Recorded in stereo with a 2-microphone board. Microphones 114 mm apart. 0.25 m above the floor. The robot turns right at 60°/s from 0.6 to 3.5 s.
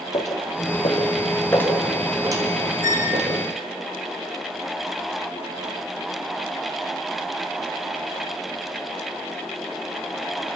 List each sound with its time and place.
0.1 s footsteps: 80° left, 5.5 m; by 3.3 s 90° right, 6.5 m
2.8 s a squeak: 25° right (ahead or behind), 6 m; by 3.2 s 45° right (ahead or behind), 6 m